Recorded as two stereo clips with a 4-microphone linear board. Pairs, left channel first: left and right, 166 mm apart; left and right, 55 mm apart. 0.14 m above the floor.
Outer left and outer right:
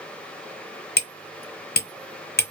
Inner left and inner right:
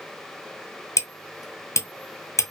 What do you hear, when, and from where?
1.0 s hammering: 70° left (ahead or behind), 0.9 m